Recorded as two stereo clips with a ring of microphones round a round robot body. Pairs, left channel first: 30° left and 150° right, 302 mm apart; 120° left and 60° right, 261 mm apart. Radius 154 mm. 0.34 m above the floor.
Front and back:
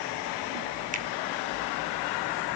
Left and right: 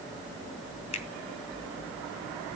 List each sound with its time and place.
0.9 s a finger snap: 165° left, 1.1 m